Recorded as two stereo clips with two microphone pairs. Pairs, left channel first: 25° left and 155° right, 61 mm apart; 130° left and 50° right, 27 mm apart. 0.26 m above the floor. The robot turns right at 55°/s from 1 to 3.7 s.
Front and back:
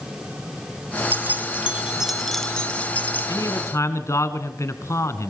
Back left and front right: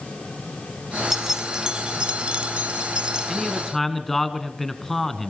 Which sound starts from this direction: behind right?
Keys jangling, at 1.1 s.